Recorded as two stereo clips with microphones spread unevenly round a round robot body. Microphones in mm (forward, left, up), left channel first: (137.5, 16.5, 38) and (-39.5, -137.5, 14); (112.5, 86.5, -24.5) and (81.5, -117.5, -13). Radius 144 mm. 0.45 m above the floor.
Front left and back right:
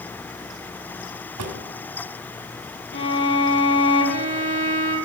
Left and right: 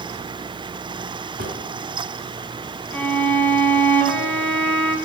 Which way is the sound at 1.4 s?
160° right.